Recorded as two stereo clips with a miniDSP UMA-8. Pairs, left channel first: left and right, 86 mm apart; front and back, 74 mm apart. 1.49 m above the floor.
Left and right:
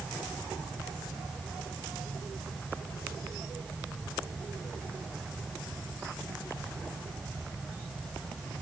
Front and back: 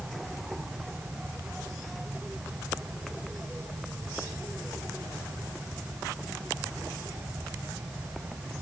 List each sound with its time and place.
Only background noise.